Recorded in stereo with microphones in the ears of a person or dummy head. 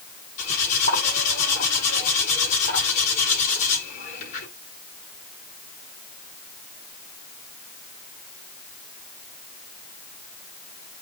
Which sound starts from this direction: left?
Cutlery clinking, at 0.4 s.